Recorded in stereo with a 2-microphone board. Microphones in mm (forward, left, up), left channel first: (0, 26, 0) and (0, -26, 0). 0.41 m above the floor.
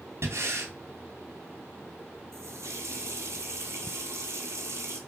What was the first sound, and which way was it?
Breathing, 55° right (ahead or behind).